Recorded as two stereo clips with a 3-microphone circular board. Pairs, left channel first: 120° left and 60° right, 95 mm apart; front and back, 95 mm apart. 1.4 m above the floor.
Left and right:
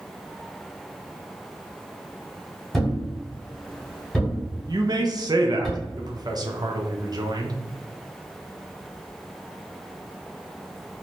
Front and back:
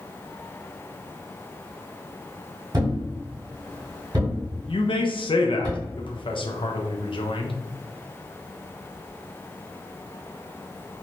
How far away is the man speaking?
About 0.5 m.